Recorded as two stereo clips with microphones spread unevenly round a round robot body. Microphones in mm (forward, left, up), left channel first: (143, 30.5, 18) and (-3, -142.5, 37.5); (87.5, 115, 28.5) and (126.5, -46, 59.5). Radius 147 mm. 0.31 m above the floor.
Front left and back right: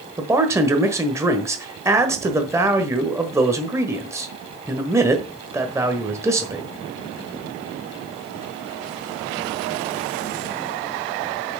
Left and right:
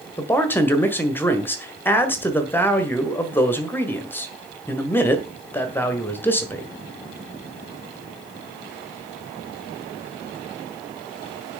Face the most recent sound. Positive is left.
turn(degrees=150)